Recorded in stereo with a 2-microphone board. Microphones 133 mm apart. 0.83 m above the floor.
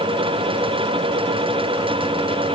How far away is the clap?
I don't hear a clap.